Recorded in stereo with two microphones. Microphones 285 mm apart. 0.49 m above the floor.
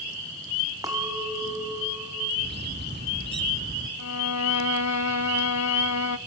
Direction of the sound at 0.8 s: 15° right (ahead or behind).